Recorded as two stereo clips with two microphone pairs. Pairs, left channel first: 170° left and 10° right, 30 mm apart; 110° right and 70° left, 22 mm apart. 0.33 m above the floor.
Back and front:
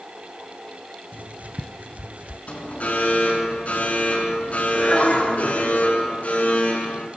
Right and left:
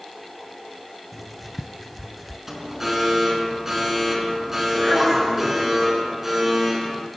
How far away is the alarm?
About 5.5 m.